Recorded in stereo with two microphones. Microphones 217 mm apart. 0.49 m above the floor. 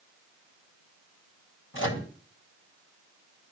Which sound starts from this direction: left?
A microwave, at 1.7 s.